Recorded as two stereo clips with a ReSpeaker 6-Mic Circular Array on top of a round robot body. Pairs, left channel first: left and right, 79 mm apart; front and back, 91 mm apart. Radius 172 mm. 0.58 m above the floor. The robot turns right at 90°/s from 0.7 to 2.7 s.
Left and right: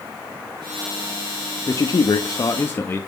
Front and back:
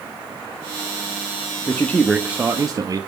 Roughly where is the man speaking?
Ahead left.